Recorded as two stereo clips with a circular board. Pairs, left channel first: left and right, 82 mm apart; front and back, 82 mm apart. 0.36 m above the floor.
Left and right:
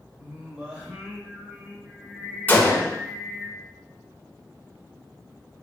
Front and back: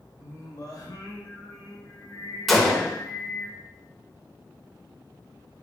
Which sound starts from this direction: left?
A gunshot, at 2.5 s.